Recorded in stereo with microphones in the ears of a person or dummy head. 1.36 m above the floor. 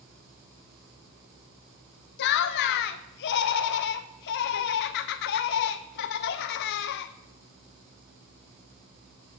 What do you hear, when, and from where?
2.2 s laughter: 60° left (ahead or behind), 0.5 m